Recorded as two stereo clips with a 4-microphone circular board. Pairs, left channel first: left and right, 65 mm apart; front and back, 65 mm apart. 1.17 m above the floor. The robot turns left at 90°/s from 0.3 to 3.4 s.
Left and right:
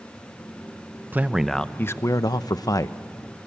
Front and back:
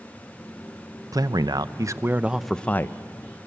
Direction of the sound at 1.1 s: 150° right.